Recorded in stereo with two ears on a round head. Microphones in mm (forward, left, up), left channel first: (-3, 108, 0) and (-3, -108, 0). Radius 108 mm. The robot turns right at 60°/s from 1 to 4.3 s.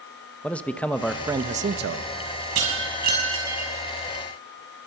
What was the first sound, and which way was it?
A man speaking, 175° left.